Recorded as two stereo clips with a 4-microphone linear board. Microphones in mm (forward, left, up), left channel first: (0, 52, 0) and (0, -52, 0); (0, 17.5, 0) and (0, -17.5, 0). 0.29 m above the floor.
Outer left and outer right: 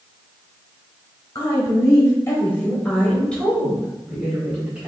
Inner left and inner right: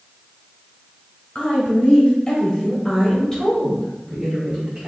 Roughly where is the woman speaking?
Left.